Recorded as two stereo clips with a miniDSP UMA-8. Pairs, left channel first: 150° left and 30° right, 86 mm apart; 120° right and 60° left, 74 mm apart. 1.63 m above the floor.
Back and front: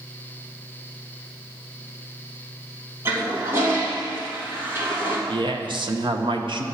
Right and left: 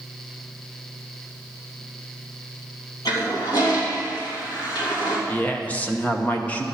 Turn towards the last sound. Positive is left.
turn(degrees=-50)